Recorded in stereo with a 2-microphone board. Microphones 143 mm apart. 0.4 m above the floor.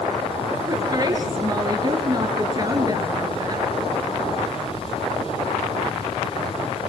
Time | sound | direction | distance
0.7 | a woman speaking | 30° right (ahead or behind) | 5 m